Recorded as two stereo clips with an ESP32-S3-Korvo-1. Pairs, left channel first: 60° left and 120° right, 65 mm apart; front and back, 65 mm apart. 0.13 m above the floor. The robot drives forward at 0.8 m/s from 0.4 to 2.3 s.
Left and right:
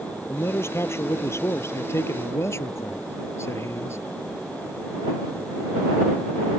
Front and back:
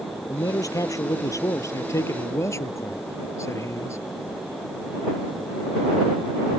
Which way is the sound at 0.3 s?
15° left.